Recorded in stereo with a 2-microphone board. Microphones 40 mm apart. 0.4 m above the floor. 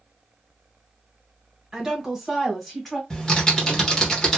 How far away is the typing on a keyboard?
About 1.1 m.